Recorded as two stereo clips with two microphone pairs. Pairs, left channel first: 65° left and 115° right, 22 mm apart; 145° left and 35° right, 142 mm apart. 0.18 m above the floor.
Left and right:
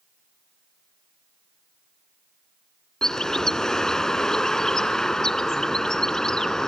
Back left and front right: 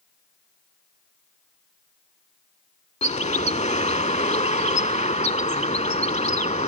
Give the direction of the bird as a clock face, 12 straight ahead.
8 o'clock.